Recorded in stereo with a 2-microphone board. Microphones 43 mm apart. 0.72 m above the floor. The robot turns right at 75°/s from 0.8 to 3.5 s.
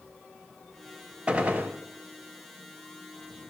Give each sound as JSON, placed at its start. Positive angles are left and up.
{"t": 1.3, "sound": "a gunshot", "azimuth_deg": -145, "distance_m": 0.6}